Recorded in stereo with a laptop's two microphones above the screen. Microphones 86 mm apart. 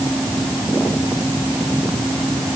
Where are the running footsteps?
I don't hear running footsteps.